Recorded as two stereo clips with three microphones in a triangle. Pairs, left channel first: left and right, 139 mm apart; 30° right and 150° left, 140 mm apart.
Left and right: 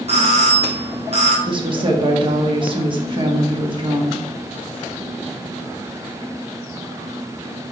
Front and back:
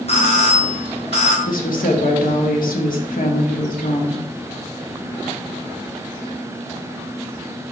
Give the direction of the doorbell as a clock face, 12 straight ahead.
2 o'clock.